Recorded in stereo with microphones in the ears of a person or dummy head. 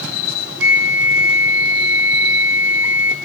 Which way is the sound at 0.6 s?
5° right (ahead or behind).